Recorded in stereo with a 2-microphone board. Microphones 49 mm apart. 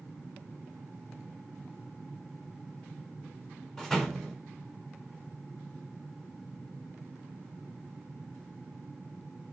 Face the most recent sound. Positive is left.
turn(degrees=5)  # may be behind; listen again after turning